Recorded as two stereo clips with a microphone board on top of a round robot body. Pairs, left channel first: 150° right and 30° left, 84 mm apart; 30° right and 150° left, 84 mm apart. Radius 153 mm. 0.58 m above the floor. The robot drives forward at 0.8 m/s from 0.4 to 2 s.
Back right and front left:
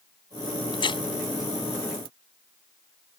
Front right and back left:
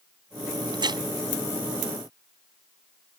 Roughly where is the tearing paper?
Behind.